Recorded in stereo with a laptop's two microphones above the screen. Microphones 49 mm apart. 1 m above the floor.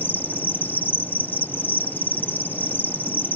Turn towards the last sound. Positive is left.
turn(degrees=45)  # may be behind; listen again after turning